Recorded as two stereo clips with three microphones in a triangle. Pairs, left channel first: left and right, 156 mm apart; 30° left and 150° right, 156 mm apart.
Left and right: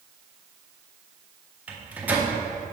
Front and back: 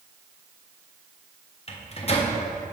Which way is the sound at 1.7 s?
10° right.